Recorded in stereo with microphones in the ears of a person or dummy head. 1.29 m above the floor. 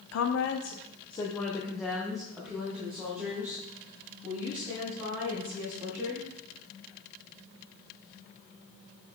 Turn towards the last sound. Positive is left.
turn(degrees=-20)  # may be behind; listen again after turning